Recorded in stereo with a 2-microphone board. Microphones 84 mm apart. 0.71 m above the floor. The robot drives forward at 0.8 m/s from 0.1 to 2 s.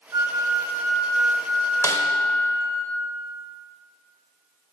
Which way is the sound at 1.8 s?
40° left (ahead or behind).